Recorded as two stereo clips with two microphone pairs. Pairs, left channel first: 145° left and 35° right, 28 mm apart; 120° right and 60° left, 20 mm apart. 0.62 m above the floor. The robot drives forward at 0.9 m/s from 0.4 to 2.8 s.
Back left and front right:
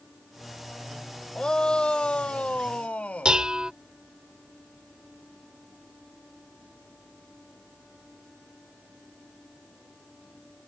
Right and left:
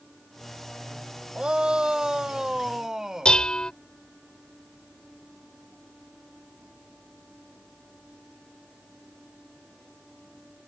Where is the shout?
90° left; by 3.4 s 115° left.